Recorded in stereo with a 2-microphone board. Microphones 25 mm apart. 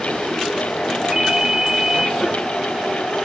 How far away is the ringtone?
About 0.6 m.